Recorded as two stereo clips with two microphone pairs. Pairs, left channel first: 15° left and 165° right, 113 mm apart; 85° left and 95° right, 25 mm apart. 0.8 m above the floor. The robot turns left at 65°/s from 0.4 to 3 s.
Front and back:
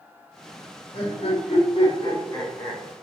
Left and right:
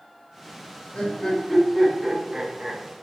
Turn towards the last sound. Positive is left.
turn(degrees=-75)